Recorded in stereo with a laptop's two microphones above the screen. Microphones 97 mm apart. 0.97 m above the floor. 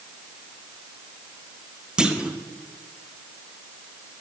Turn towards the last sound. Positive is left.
turn(degrees=-10)  # may be behind; listen again after turning